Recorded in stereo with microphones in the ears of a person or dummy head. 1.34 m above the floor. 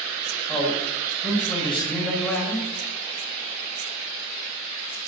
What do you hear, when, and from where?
0.5 s a man speaking: 10° left (ahead or behind), 6 m